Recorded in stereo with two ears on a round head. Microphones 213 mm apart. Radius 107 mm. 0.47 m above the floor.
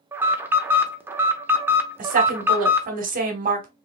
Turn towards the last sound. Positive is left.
turn(degrees=-35)  # may be behind; listen again after turning